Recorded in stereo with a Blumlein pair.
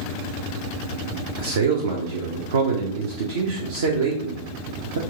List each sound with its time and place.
1.4 s a man speaking: 65° right, 0.8 m